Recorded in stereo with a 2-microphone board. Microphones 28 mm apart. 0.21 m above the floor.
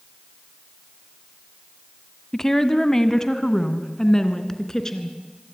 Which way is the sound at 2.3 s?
15° left (ahead or behind).